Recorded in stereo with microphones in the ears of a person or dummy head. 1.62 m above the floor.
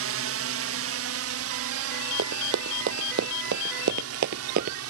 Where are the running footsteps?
55° right (ahead or behind); by 4.8 s 35° right (ahead or behind).